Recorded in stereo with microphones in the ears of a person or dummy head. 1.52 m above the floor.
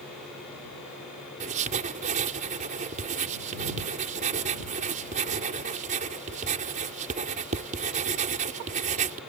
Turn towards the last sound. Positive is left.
turn(degrees=-40)  # may be behind; listen again after turning